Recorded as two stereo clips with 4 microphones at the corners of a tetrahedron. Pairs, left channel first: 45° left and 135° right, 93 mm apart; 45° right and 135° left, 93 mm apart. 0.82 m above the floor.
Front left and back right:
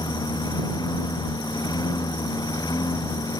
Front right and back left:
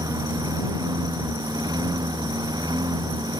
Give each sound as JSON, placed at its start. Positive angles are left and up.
{"t": 0.0, "sound": "a lawn mower", "azimuth_deg": 90}